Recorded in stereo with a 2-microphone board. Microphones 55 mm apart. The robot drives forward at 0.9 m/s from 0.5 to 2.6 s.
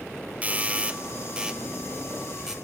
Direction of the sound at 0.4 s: 25° right (ahead or behind).